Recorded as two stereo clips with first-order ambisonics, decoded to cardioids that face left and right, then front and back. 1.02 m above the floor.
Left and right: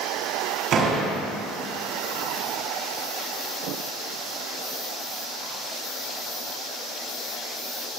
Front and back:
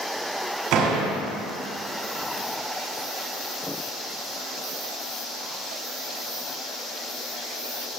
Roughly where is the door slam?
Behind right.